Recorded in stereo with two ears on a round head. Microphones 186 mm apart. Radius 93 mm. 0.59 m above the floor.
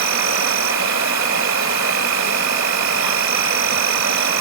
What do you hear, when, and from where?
0.0 s an insect: 65° right (ahead or behind)